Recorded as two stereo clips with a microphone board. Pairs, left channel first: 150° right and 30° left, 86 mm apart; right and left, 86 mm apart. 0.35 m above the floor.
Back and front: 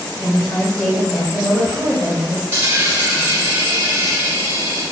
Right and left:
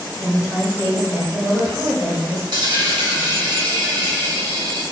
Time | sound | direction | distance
0.2 | a woman speaking | 175° left | 1.0 m
2.5 | a dropped coin | 95° left | 1.4 m